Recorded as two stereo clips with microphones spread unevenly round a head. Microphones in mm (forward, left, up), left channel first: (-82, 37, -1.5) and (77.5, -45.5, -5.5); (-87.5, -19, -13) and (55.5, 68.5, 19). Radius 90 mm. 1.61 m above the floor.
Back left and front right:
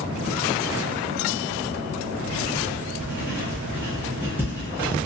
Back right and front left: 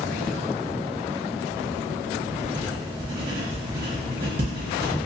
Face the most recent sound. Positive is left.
turn(degrees=50)